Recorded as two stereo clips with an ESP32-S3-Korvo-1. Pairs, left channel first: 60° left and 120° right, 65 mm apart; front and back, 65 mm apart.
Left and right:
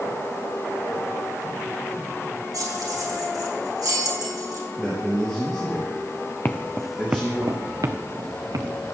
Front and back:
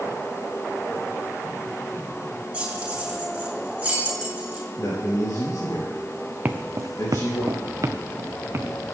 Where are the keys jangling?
110° right, 5.5 m.